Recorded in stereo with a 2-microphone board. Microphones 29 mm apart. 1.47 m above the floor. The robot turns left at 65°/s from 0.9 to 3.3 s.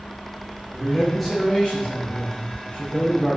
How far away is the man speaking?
About 4.5 m.